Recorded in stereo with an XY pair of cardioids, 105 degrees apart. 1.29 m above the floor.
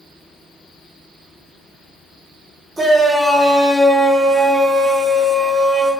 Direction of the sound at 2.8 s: 15° right.